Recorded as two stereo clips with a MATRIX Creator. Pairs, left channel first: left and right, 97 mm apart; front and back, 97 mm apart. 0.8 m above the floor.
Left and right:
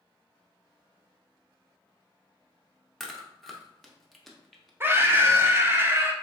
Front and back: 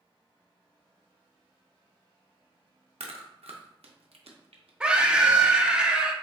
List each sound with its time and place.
3.0 s chewing: straight behind, 0.6 m
4.8 s a scream: 115° right, 0.5 m